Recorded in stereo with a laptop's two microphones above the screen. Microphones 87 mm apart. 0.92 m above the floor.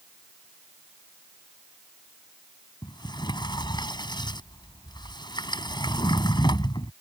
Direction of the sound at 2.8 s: 55° left (ahead or behind).